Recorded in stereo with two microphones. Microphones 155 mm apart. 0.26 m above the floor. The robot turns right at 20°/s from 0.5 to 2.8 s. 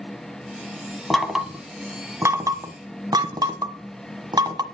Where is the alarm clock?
I don't hear an alarm clock.